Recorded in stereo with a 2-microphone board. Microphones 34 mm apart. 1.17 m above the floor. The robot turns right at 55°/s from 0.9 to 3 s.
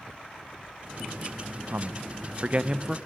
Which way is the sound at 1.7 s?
75° right (ahead or behind).